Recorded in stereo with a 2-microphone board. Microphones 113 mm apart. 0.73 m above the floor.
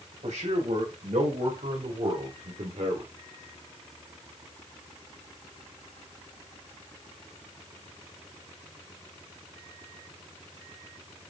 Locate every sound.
0.2 s a man speaking: 75° right (ahead or behind), 4.5 m; by 3.1 s 60° right (ahead or behind), 2.5 m